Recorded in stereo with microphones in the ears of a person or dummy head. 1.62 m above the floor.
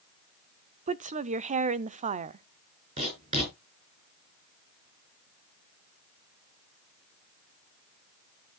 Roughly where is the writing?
Right.